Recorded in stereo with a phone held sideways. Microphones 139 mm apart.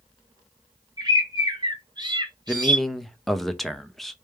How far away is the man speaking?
About 0.6 m.